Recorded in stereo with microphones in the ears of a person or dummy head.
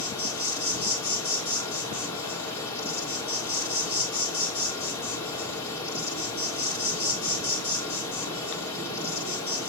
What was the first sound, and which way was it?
An insect, 20° left (ahead or behind).